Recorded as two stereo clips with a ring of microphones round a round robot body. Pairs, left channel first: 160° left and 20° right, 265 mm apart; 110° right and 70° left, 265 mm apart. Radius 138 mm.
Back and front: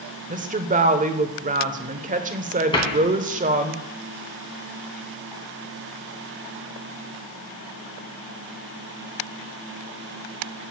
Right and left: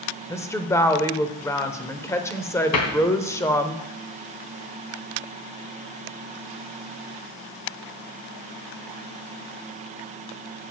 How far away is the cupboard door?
About 2.5 m.